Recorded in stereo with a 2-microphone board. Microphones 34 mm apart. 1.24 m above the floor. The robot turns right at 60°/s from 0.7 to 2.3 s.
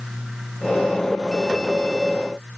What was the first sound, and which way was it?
Only background noise.